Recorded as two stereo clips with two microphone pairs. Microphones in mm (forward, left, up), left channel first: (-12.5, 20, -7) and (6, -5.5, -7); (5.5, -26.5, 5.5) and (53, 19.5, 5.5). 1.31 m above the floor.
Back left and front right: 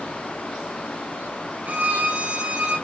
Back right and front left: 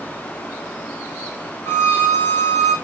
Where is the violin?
80° right, 6.5 m.